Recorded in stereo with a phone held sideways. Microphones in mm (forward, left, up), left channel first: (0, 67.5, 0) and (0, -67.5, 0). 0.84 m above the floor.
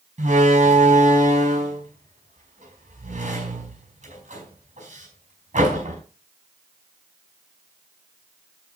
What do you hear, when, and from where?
0.2 s a door slam: 65° right (ahead or behind), 5 m